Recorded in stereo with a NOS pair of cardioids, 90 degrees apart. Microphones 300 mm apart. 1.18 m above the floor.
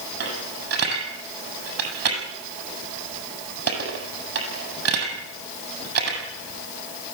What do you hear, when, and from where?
0.2 s a dropped coin: 50° right, 8 m